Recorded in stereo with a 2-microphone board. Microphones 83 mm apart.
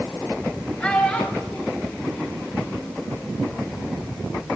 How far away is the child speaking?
About 3 m.